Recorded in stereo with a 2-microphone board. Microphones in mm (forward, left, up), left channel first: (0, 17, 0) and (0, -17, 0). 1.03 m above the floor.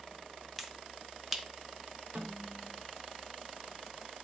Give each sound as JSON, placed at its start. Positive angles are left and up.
{"t": 0.6, "sound": "a finger snap", "side_deg": -5, "distance_m": 1.0}
{"t": 2.1, "sound": "a snare drum", "side_deg": -65, "distance_m": 3.0}